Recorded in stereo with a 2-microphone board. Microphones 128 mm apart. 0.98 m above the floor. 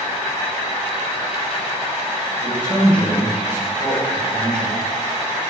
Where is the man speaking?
20° left (ahead or behind), 1.5 m.